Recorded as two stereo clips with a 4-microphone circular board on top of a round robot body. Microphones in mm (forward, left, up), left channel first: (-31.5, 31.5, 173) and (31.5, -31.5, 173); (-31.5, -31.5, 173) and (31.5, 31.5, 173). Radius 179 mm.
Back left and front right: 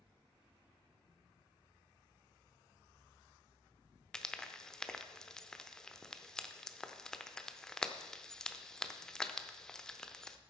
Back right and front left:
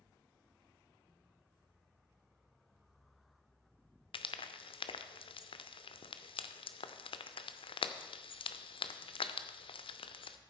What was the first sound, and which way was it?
Frying, 140° right.